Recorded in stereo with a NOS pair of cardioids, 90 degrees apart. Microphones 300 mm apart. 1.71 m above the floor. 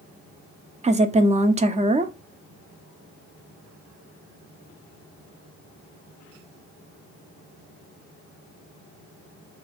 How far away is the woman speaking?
About 0.6 m.